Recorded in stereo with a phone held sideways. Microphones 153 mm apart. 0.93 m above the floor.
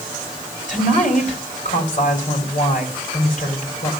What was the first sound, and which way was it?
A woman speaking, 50° left (ahead or behind).